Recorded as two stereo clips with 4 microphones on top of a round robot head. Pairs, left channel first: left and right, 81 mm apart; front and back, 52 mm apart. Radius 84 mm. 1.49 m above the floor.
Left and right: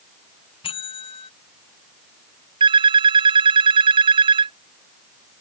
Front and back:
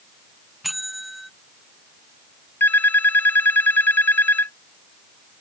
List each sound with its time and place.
0.6 s a bell: 90° left
2.6 s a phone ringing: 65° right